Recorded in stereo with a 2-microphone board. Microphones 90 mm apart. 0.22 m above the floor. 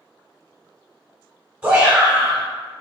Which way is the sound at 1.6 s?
20° right (ahead or behind).